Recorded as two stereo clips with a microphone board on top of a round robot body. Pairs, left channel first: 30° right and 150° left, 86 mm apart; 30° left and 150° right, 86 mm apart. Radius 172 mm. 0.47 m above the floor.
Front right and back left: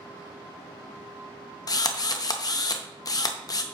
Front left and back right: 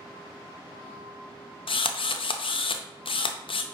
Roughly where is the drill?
Ahead.